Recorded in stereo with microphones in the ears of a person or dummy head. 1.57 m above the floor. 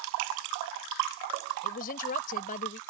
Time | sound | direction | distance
1.6 | a woman speaking | 50° left (ahead or behind) | ?